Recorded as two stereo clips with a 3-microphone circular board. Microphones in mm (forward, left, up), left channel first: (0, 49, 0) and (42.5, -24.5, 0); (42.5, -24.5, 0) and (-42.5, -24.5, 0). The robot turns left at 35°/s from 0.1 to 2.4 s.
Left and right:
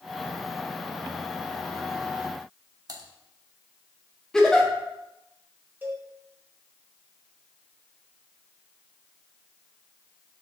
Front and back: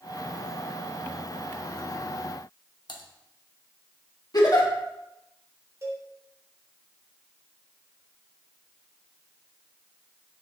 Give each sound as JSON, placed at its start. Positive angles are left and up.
{"t": 2.9, "sound": "typing on a keyboard", "azimuth_deg": -25, "distance_m": 1.2}
{"t": 4.3, "sound": "a giggle", "azimuth_deg": 35, "distance_m": 1.7}
{"t": 5.8, "sound": "a cowbell", "azimuth_deg": -130, "distance_m": 3.0}